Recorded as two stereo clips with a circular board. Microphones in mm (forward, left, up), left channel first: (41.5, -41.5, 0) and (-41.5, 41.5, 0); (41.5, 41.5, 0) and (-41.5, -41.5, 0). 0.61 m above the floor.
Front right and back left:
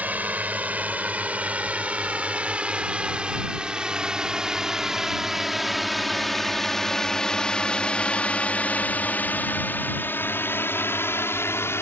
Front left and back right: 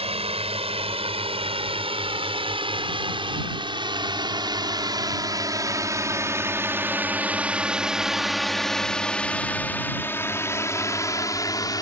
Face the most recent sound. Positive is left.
turn(degrees=10)